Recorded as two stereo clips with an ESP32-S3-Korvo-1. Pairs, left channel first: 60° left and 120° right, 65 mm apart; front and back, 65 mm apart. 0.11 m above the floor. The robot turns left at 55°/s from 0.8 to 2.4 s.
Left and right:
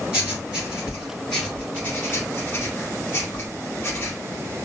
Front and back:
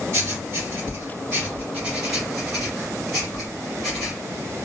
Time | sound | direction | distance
0.1 | writing | 170° left | 2.0 m